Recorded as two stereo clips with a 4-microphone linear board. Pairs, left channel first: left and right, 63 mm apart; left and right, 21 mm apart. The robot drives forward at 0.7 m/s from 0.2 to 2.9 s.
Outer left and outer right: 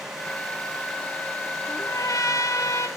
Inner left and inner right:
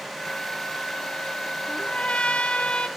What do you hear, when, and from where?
1.7 s a trumpet: 65° left (ahead or behind), 1.7 m; by 2.9 s 55° left (ahead or behind), 1.8 m